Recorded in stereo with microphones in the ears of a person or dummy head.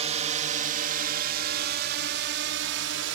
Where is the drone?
35° right (ahead or behind); by 3.2 s 70° right (ahead or behind).